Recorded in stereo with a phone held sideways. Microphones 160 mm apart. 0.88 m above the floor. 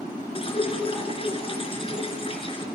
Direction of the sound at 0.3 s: 35° left (ahead or behind).